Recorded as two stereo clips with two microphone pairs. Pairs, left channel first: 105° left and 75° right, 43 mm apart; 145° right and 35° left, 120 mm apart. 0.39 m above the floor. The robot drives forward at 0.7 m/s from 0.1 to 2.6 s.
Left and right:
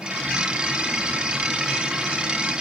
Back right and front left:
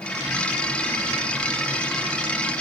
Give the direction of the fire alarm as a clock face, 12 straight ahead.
No fire alarm in this recording.